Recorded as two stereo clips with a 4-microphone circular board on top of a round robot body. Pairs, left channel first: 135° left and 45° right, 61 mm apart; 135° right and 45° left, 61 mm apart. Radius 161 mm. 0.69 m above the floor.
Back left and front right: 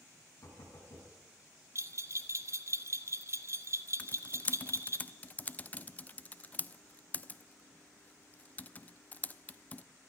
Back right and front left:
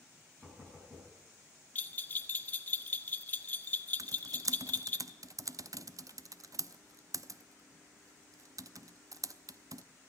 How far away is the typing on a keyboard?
About 0.6 m.